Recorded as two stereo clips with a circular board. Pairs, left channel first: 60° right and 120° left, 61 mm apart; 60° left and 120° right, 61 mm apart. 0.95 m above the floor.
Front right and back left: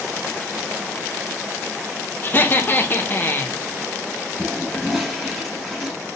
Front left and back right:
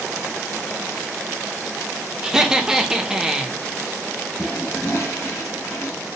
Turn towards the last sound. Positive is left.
turn(degrees=30)